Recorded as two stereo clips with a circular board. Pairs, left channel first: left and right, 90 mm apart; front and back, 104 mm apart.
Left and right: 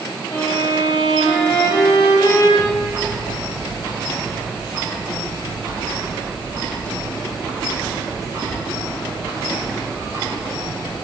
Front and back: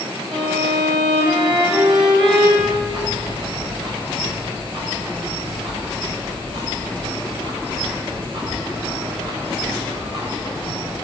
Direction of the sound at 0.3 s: 145° left.